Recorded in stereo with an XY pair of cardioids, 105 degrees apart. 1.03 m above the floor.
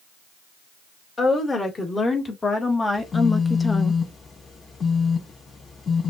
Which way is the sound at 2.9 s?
35° left.